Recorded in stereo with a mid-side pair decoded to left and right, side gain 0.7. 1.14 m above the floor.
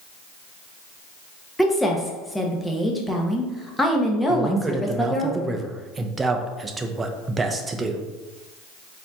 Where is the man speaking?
20° right, 0.6 m.